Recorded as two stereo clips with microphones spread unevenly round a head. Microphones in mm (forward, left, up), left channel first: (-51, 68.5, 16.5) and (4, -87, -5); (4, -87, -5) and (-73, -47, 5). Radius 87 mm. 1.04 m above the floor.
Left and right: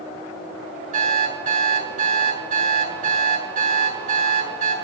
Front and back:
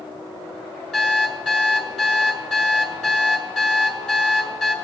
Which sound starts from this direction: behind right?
An alarm clock, at 0.9 s.